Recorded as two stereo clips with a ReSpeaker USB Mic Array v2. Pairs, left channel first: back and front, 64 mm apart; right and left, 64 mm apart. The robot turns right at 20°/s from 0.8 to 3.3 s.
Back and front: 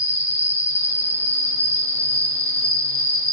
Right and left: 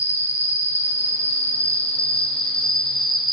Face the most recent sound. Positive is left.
turn(degrees=0)